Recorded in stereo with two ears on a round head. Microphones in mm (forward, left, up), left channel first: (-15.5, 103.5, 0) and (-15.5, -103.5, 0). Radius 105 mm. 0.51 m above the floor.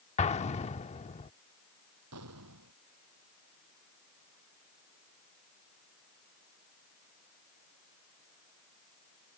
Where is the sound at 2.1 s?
75° right (ahead or behind).